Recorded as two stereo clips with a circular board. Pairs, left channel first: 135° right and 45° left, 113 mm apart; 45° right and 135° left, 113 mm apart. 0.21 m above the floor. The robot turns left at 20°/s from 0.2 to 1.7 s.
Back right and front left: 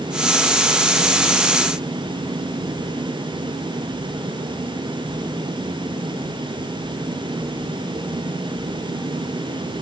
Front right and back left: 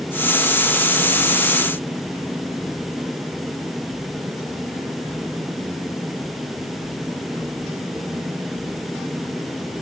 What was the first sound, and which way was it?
Only background noise.